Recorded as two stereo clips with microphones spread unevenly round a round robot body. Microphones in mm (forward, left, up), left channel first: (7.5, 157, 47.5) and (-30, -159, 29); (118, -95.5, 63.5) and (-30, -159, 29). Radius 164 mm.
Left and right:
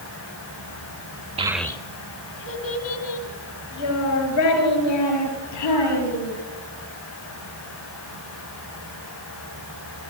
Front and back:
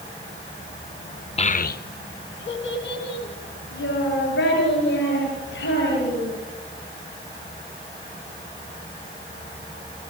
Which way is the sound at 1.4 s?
35° right.